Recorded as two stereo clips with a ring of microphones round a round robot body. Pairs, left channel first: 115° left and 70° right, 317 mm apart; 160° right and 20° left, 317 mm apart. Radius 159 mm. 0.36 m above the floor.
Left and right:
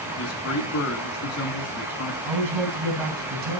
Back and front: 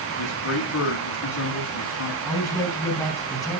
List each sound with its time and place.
0.2 s a man speaking: 155° left, 3.5 m
2.2 s a man speaking: 70° right, 3.5 m